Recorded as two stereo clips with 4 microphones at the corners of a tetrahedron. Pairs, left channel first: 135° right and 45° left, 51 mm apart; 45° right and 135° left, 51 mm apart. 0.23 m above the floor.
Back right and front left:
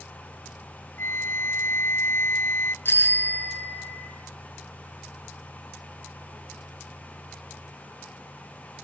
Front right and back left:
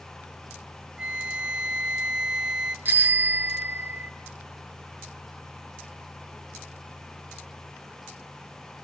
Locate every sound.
1.0 s a flute: 155° right, 1.0 m
2.9 s a bicycle bell: 175° right, 2 m